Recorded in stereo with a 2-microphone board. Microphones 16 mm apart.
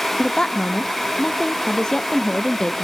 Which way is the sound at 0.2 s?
35° left (ahead or behind).